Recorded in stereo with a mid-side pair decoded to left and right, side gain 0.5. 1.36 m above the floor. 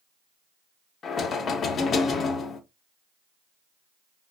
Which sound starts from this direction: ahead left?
Knocking, at 1.0 s.